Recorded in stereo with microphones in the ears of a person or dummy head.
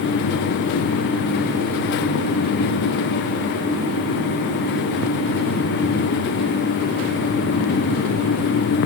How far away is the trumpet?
No trumpet in this recording.